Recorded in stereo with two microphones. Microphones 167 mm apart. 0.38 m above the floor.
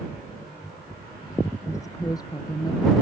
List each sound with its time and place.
1.7 s a woman speaking: 20° left (ahead or behind); by 3.0 s 25° left (ahead or behind)